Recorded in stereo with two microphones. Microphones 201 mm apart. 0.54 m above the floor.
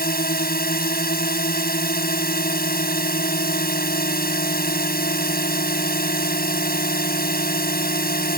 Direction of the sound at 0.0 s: 55° left (ahead or behind).